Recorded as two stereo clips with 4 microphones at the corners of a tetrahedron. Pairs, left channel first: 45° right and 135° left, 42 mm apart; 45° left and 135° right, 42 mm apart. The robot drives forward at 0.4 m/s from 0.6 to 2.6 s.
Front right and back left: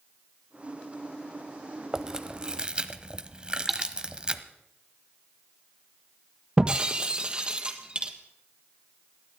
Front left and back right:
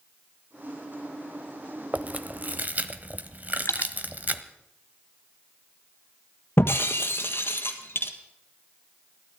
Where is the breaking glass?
65° left, 1.4 m.